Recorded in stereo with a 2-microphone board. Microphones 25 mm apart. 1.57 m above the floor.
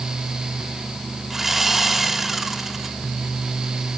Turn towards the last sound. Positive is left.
turn(degrees=-10)  # may be behind; listen again after turning